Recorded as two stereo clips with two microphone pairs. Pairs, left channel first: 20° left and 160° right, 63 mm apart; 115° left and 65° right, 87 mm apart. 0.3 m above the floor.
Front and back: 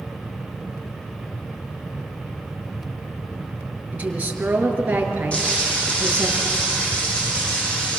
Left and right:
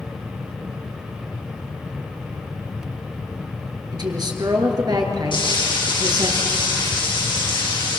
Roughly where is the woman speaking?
Right.